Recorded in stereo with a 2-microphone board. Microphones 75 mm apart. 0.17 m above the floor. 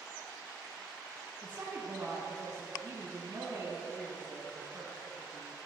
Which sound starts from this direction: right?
A woman speaking, at 1.4 s.